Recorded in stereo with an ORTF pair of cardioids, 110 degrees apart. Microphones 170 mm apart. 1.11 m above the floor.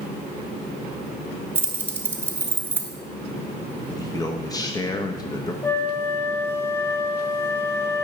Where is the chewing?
No chewing in this recording.